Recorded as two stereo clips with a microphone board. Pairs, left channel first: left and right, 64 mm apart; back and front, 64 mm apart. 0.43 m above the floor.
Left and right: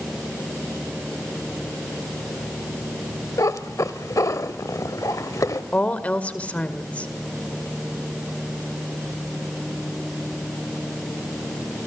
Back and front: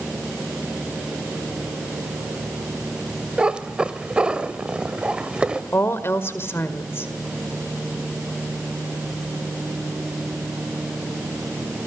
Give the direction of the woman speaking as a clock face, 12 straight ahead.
7 o'clock.